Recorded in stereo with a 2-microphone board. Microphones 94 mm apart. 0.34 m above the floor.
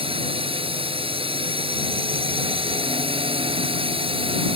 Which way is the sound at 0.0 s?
75° right (ahead or behind).